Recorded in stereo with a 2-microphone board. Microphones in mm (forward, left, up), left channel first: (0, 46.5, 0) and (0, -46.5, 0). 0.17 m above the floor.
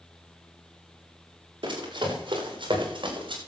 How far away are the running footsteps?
About 7.5 m.